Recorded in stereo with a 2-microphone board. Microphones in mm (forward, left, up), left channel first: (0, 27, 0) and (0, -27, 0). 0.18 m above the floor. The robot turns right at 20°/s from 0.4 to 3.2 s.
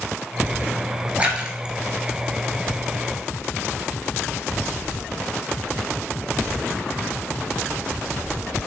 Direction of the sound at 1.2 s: 25° right (ahead or behind).